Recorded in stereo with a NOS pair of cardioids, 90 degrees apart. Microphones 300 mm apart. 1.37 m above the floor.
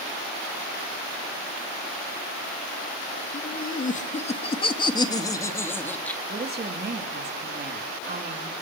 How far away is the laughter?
About 2.5 m.